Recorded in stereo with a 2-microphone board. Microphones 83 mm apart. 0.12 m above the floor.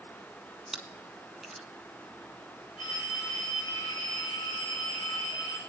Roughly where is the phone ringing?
Left.